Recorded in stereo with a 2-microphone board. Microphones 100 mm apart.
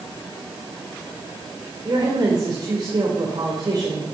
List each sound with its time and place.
1.9 s a woman speaking: 45° right (ahead or behind), 3 m